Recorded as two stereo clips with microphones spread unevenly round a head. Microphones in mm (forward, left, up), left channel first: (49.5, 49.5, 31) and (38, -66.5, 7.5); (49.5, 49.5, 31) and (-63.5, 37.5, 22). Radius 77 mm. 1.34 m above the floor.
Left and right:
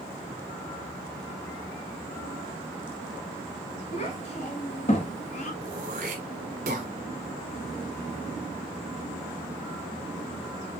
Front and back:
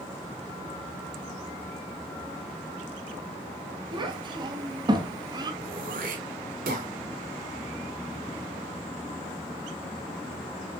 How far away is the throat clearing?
About 2.0 m.